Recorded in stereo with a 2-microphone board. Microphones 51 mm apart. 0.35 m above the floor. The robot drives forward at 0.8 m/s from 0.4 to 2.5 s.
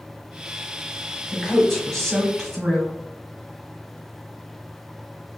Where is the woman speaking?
5° left (ahead or behind), 1.8 m.